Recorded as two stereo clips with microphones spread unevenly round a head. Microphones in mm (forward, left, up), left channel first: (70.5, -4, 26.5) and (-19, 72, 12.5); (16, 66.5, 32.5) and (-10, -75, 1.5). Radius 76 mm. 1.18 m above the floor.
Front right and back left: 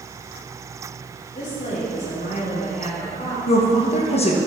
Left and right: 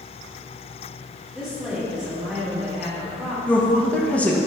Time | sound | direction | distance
1.4 | a woman speaking | 15° right | 3.5 m
3.5 | a woman speaking | 5° right | 1.3 m